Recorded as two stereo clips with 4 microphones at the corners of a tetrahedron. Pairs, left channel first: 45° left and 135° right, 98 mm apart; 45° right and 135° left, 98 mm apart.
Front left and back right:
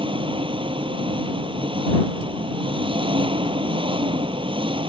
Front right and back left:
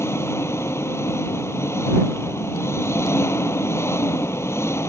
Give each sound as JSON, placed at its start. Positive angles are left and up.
{"t": 0.0, "sound": "an engine running", "azimuth_deg": -105}